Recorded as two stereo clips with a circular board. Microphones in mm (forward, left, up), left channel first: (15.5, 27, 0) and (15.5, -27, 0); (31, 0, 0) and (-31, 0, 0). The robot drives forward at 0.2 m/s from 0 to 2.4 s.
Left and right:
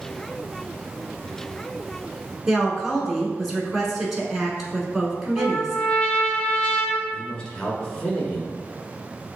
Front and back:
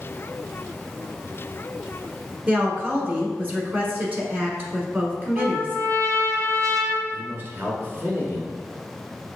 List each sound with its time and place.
2.5 s a woman speaking: 170° right, 1.2 m
5.4 s a trumpet: 160° left, 0.8 m
7.1 s a man speaking: 155° left, 1.4 m